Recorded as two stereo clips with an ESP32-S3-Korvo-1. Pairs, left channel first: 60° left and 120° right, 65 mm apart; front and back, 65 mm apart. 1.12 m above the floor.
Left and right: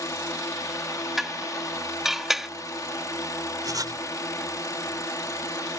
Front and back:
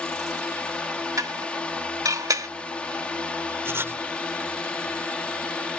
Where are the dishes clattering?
155° left.